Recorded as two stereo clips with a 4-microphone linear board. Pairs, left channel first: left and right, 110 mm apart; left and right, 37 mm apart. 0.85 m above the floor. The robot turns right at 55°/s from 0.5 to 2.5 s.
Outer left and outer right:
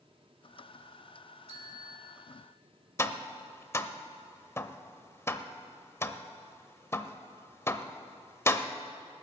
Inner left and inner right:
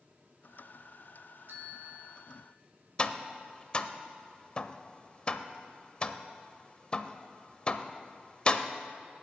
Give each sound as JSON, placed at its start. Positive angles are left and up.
{"t": 1.5, "sound": "a bell", "azimuth_deg": -70, "distance_m": 2.0}
{"t": 3.0, "sound": "tapping", "side_deg": 25, "distance_m": 0.6}